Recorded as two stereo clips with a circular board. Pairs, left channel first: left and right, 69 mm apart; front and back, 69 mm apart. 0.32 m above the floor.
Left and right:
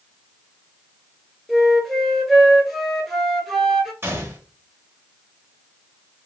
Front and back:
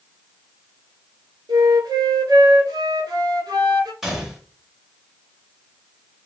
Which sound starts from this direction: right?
A gunshot, at 4.0 s.